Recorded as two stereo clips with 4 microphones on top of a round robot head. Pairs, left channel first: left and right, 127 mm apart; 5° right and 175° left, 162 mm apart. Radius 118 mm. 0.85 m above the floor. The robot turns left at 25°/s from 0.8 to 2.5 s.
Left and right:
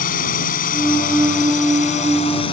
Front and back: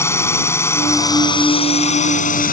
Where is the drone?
70° left; by 2.5 s 30° left.